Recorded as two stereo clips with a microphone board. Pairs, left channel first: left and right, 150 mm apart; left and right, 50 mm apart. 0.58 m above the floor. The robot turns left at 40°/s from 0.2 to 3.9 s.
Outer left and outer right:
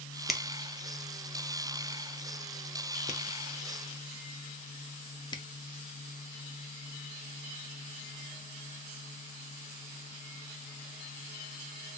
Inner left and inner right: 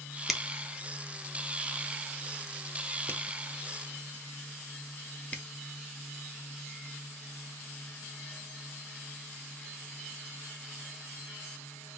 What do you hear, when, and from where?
0.3 s a finger snap: centre (ahead or behind), 0.6 m; by 5.4 s 30° left (ahead or behind), 0.6 m